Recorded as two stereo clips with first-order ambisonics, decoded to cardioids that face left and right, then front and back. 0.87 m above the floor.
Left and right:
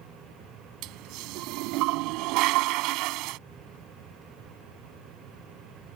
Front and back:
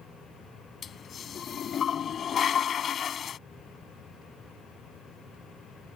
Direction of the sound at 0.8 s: 65° right.